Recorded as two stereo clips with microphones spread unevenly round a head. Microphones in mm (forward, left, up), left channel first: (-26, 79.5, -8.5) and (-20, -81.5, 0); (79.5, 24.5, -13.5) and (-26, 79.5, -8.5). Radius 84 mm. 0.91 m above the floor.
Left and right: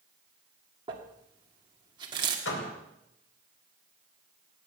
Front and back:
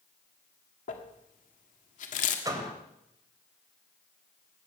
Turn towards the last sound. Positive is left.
turn(degrees=95)